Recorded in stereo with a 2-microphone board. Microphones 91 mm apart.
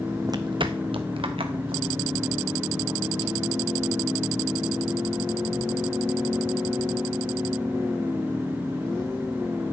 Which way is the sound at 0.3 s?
40° right (ahead or behind).